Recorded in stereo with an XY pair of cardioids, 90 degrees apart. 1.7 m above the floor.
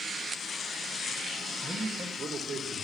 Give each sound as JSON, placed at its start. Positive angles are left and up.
{"t": 1.6, "sound": "a man speaking", "azimuth_deg": -70, "distance_m": 2.0}